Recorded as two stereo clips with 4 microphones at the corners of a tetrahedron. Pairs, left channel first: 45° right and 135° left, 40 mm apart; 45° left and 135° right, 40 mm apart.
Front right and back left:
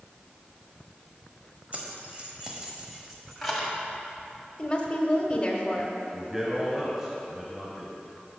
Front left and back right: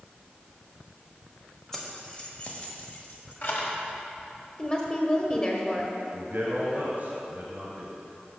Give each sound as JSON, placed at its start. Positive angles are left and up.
{"t": 1.7, "sound": "keys jangling", "azimuth_deg": 120, "distance_m": 1.2}
{"t": 4.6, "sound": "a woman speaking", "azimuth_deg": 0, "distance_m": 1.1}
{"t": 6.1, "sound": "a man speaking", "azimuth_deg": -155, "distance_m": 2.0}